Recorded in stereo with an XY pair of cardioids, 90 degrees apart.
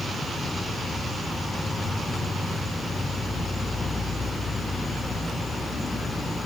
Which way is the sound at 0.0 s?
10° left.